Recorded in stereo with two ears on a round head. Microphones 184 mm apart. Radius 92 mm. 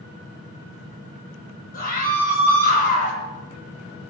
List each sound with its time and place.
1.7 s a scream: 50° left (ahead or behind), 8.5 m